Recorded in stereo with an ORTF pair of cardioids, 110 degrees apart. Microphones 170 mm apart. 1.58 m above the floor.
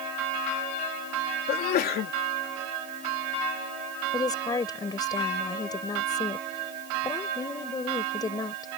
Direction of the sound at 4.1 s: 25° left.